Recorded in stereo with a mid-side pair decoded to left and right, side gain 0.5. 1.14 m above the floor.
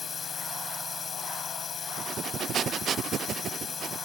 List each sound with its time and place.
0.0 s a drone: 35° left
2.0 s breathing: 55° right